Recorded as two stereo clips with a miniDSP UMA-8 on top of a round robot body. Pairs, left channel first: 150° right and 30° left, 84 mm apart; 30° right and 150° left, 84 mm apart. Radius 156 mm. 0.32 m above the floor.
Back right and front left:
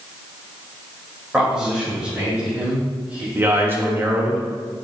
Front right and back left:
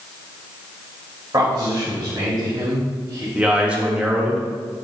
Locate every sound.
1.3 s a man speaking: 110° left, 2 m; by 3.2 s 105° left, 3.5 m
3.4 s a man speaking: 80° left, 1.6 m